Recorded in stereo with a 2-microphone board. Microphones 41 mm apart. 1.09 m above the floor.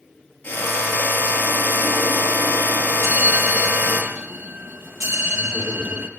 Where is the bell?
75° right (ahead or behind), 5 m.